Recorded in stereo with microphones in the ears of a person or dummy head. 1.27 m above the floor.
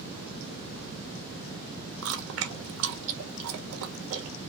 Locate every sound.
2.0 s chewing: 75° right (ahead or behind), 1.2 m